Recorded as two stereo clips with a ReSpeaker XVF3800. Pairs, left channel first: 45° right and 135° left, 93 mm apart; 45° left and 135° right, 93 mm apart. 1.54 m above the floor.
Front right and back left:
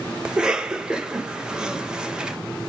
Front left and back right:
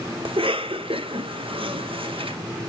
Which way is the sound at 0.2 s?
145° right.